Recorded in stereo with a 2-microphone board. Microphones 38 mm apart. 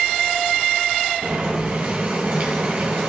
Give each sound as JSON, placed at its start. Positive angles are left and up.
{"t": 1.2, "sound": "boiling", "side_deg": -50, "distance_m": 1.6}